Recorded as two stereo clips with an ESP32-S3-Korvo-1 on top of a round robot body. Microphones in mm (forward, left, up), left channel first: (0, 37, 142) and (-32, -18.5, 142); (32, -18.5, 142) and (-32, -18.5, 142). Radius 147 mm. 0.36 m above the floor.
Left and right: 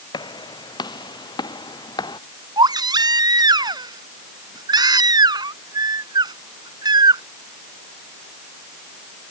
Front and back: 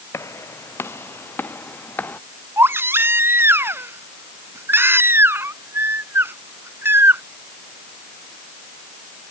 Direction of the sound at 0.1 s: 55° left.